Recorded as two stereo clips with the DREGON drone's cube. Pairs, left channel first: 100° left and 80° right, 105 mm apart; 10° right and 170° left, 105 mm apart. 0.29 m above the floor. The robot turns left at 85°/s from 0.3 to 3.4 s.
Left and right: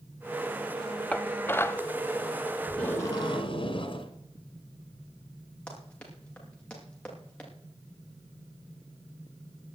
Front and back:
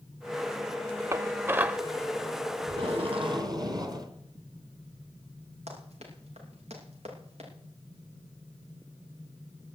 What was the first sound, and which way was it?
Dishes clattering, 160° left.